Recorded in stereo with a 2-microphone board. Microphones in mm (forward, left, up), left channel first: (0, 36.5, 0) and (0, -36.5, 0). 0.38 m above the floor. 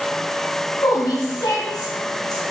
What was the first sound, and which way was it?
A woman speaking, 55° left (ahead or behind).